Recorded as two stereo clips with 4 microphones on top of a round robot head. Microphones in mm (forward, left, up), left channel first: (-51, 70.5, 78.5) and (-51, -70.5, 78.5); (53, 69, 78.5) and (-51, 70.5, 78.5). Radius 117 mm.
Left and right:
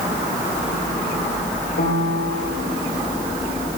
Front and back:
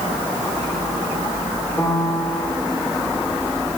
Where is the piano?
70° left, 4 m.